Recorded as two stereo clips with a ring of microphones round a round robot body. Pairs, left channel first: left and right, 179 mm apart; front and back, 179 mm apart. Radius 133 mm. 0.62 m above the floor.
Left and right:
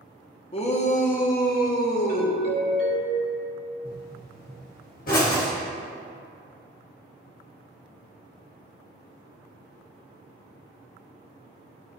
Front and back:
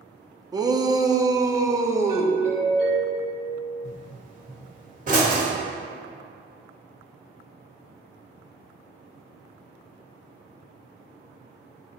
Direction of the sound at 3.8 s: 140° left.